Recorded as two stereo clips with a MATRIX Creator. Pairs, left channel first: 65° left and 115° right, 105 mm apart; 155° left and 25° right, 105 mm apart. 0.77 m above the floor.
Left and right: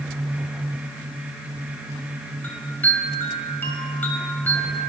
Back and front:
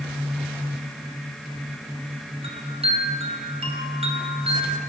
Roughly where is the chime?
Ahead.